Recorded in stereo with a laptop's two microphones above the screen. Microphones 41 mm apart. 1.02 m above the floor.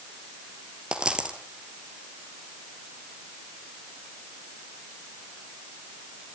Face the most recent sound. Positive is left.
turn(degrees=-25)  # may be behind; listen again after turning